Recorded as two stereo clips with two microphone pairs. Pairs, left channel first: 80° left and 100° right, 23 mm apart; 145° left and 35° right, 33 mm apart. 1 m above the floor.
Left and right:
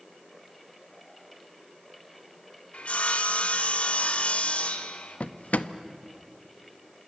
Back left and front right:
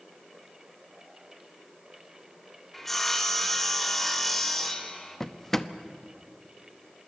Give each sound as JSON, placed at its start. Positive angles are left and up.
{"t": 2.7, "sound": "sawing", "azimuth_deg": 65, "distance_m": 1.4}
{"t": 5.2, "sound": "a drawer", "azimuth_deg": 70, "distance_m": 0.7}